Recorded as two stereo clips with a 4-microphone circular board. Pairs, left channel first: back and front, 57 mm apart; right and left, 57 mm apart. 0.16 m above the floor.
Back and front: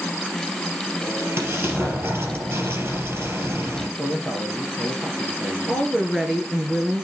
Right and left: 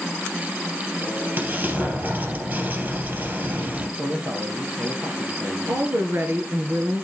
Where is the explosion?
40° left, 3 m.